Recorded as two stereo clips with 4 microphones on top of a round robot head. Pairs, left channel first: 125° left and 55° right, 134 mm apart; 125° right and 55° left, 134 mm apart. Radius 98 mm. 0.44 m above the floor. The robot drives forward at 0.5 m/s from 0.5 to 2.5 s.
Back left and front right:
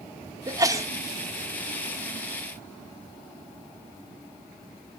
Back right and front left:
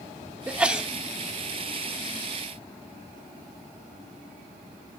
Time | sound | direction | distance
0.5 | a sneeze | 20° right | 1.4 m